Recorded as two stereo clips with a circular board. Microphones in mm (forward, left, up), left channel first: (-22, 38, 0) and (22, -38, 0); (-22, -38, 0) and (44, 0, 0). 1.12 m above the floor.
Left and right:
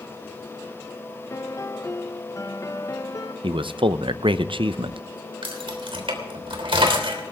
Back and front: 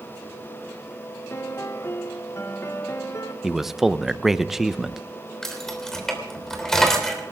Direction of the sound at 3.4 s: 55° right.